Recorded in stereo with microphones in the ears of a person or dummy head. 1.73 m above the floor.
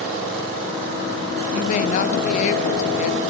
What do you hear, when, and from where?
1.5 s a woman speaking: 45° left (ahead or behind), 0.5 m